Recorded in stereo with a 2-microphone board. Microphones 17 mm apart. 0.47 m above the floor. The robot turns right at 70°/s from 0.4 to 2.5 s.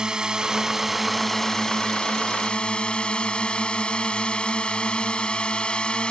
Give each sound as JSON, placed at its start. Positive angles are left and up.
{"t": 0.0, "sound": "a drone", "azimuth_deg": -40}